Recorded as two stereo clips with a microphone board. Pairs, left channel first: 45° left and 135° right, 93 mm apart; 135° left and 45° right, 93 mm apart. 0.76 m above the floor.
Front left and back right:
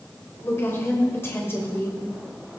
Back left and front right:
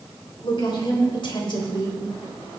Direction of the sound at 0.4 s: 110° left.